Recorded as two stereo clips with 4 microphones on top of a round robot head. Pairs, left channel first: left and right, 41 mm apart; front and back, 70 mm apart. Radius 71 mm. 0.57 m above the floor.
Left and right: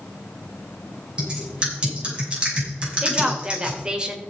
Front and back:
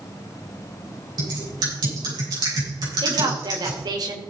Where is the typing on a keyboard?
155° right, 6 m.